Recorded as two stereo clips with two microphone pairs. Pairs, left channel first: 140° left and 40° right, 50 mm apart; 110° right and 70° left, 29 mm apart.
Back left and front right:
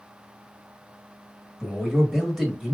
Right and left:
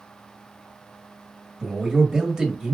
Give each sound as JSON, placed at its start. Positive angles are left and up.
{"t": 1.6, "sound": "a man speaking", "azimuth_deg": 40, "distance_m": 1.4}